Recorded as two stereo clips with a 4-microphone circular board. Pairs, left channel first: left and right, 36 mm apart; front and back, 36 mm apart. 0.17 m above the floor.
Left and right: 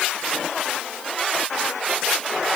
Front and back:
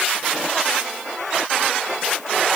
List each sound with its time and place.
Only background noise.